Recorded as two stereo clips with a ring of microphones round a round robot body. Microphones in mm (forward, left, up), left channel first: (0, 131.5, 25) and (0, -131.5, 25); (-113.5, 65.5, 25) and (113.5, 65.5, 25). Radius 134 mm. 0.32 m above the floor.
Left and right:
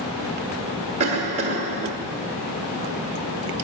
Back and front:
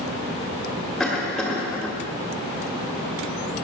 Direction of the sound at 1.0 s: 90° right.